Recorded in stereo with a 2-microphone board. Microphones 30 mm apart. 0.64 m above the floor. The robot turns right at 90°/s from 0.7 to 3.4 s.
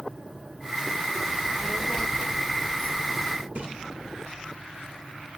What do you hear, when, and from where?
1.3 s a child speaking: 45° right, 1.3 m; by 3.5 s 145° left, 1.3 m
3.5 s a splash: 40° right (ahead or behind), 2.5 m